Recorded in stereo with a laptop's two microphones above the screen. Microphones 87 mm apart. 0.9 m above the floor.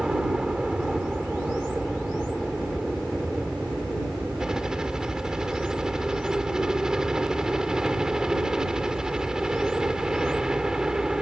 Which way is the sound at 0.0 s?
5° right (ahead or behind).